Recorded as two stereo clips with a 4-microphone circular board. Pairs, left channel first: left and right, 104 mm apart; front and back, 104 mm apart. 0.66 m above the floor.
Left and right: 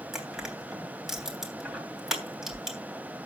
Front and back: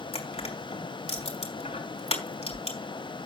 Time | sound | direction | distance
0.1 | crushing | 5° right | 3 m